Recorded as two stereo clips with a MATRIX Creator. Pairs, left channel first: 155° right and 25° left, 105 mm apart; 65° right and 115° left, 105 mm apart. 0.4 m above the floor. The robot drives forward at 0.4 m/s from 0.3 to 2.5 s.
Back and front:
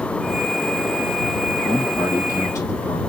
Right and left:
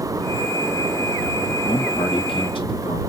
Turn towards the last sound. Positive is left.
turn(degrees=-100)